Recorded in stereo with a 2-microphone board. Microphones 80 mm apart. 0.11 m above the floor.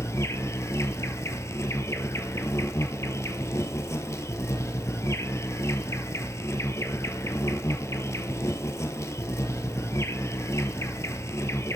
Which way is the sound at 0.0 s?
40° left (ahead or behind).